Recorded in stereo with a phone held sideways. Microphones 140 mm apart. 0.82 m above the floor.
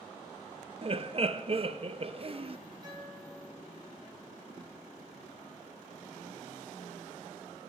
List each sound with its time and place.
0.8 s laughter: 40° right (ahead or behind), 0.7 m
2.8 s a guitar: 30° right (ahead or behind), 6.5 m